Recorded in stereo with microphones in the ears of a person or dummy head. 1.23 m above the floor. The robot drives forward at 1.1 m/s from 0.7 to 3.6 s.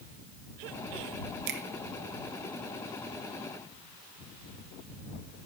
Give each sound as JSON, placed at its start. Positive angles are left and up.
{"t": 1.5, "sound": "a finger snap", "side_deg": -55, "distance_m": 1.1}